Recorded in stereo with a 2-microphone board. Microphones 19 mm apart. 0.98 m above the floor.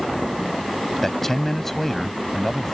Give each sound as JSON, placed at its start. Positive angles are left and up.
{"t": 1.0, "sound": "a man speaking", "side_deg": 15}